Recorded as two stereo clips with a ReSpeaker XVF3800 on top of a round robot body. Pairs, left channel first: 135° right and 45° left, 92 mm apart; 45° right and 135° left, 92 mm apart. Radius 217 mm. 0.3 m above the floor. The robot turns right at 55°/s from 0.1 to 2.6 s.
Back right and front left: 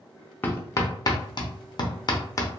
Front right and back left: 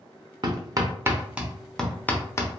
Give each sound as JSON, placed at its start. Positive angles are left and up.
{"t": 0.4, "sound": "hammering", "azimuth_deg": 160, "distance_m": 0.9}